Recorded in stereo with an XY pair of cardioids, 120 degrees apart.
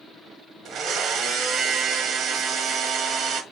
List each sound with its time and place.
0.7 s a blender: 65° right, 0.9 m